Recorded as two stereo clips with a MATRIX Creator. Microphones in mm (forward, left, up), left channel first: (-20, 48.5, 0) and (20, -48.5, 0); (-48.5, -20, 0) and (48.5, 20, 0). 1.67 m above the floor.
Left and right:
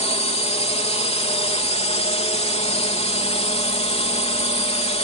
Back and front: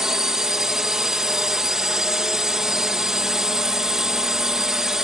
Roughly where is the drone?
Left.